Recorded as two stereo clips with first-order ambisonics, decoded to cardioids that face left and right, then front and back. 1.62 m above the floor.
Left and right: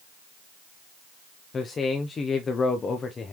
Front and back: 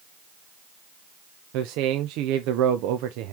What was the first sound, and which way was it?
A man speaking, 160° left.